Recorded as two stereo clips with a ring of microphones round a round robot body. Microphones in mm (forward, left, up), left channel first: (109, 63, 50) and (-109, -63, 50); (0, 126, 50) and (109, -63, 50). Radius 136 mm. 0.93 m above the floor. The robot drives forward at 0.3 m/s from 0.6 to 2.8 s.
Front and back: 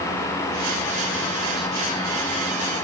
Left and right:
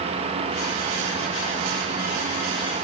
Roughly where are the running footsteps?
I don't hear running footsteps.